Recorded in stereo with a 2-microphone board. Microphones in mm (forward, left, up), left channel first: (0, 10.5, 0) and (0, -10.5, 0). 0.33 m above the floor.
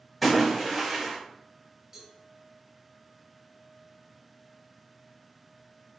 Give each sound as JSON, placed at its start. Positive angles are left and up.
{"t": 0.2, "sound": "a splash", "side_deg": 0, "distance_m": 1.7}
{"t": 1.9, "sound": "a cowbell", "side_deg": -25, "distance_m": 1.7}